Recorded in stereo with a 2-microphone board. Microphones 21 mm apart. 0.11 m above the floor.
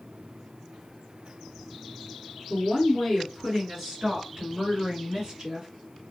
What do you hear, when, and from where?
2.5 s a woman speaking: 10° left (ahead or behind), 1.7 m; by 5.7 s 25° right (ahead or behind), 2.5 m